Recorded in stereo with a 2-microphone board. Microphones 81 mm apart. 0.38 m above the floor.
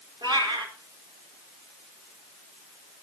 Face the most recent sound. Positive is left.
turn(degrees=-80)